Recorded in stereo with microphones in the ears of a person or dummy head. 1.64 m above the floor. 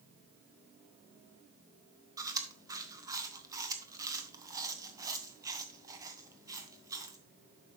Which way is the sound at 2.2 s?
20° right (ahead or behind).